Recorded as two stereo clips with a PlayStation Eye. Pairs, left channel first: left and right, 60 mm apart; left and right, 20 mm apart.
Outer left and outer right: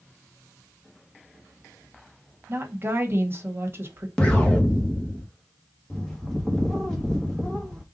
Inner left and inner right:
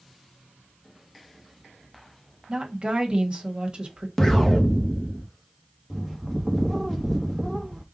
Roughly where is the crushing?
No crushing in this recording.